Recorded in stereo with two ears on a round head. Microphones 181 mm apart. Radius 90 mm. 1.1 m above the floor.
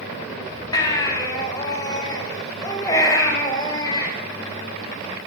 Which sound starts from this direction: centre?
A baby crying, at 0.7 s.